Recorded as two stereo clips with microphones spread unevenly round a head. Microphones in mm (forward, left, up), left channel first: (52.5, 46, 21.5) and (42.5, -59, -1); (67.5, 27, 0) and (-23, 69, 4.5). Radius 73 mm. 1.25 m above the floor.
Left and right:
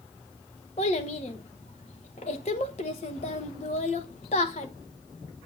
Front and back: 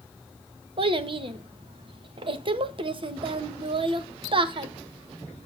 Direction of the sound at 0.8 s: 125° left.